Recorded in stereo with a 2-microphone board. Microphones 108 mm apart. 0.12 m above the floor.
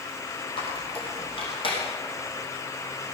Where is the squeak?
55° left (ahead or behind), 4 m.